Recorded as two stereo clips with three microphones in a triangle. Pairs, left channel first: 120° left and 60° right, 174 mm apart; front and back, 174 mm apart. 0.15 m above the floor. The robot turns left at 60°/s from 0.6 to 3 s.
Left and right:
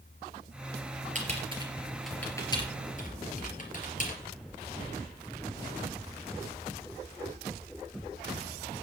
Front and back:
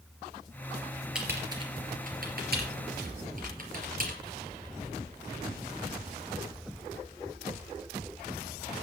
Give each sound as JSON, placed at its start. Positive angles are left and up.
{"t": 1.1, "sound": "typing on a keyboard", "azimuth_deg": -95, "distance_m": 3.5}